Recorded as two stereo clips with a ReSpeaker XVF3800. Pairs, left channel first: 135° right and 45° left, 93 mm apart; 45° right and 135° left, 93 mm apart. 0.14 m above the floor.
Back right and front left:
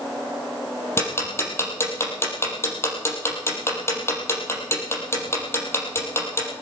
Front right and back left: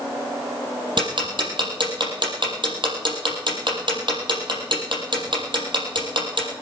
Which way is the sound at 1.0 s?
165° left.